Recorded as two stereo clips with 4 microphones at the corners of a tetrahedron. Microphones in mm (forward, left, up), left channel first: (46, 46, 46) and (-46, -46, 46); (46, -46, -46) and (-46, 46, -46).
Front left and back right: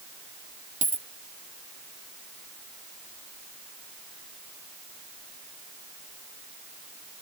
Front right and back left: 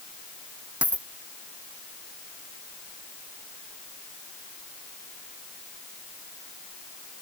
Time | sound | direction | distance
0.8 | a dropped coin | 145° right | ?